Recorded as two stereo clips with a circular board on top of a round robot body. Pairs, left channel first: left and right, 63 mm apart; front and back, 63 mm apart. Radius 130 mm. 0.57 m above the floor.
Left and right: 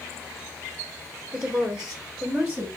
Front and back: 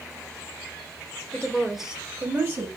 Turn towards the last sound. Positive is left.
turn(degrees=-165)